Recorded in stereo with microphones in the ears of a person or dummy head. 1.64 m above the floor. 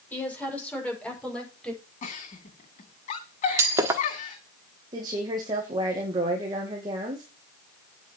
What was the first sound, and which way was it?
A woman speaking, 5° left (ahead or behind).